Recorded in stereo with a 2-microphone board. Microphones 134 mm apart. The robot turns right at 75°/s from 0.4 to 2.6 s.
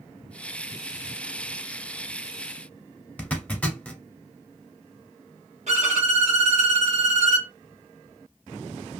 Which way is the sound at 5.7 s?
60° right (ahead or behind).